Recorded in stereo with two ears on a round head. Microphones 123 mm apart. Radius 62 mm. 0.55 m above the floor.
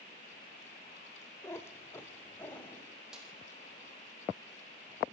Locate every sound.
1.4 s a cat meowing: 20° left (ahead or behind), 1.0 m; by 2.9 s 15° left (ahead or behind), 1.9 m
3.1 s a snare drum: 5° right (ahead or behind), 6 m